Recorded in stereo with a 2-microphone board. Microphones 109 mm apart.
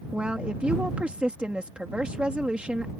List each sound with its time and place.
0.1 s a woman speaking: 10° right (ahead or behind)